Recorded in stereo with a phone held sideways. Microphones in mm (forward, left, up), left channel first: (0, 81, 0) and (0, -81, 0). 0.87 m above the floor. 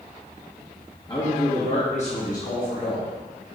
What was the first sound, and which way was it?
A man speaking, 25° left (ahead or behind).